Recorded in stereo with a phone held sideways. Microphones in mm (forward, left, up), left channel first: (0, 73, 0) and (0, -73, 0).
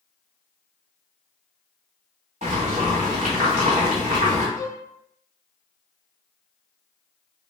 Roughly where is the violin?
Left.